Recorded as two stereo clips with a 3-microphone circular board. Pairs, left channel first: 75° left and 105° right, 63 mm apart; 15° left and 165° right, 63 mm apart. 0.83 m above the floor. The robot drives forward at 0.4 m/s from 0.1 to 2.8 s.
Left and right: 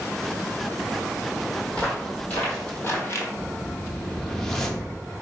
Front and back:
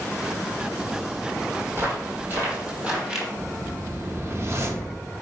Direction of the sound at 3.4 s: 155° left.